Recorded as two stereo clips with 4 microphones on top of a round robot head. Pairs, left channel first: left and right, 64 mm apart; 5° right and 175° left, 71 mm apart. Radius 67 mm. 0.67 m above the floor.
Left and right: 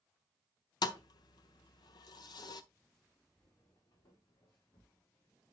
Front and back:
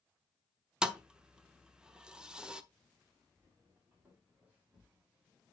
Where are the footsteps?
110° left, 4.5 m; by 5.5 s 100° left, 5.5 m.